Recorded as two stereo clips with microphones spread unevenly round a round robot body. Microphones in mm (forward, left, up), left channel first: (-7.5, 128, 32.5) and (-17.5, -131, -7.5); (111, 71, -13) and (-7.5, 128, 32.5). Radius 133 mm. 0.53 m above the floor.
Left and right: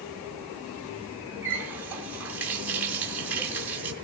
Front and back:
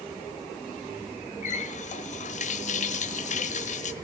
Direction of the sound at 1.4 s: 10° right.